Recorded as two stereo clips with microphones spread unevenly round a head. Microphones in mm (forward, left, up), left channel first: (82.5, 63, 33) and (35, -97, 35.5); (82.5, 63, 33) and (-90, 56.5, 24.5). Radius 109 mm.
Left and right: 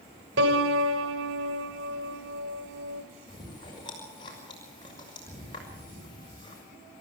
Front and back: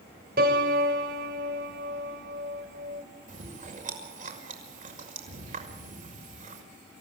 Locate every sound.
0.4 s a piano: 130° right, 3 m
3.3 s chewing: 140° left, 6 m